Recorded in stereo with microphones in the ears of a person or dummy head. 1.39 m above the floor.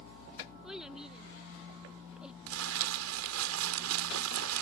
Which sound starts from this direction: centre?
A child speaking, at 0.6 s.